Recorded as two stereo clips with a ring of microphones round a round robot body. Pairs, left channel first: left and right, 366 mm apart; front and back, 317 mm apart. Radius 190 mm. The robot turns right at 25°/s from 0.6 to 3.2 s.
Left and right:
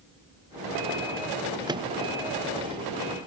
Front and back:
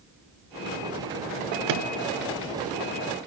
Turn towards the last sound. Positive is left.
turn(degrees=-130)